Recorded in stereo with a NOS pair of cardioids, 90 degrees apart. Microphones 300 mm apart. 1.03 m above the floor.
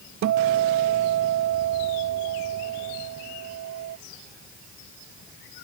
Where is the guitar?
65° right, 0.9 m.